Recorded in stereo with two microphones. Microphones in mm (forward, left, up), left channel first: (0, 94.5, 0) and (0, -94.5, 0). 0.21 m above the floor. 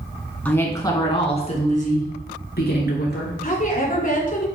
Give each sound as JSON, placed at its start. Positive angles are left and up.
{"t": 0.5, "sound": "a woman speaking", "side_deg": 10, "distance_m": 2.0}
{"t": 3.4, "sound": "a woman speaking", "side_deg": 45, "distance_m": 2.5}